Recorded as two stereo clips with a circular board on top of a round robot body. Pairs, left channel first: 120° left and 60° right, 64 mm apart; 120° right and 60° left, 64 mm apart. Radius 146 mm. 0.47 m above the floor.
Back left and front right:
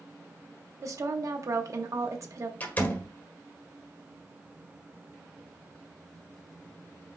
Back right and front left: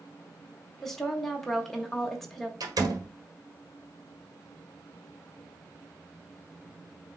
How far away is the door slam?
About 1.6 m.